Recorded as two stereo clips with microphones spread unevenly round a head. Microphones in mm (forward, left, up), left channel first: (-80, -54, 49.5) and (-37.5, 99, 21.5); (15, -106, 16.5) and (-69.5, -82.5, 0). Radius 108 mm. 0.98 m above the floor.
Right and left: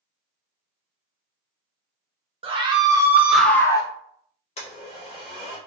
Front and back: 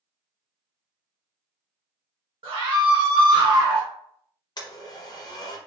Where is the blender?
55° right, 0.7 m.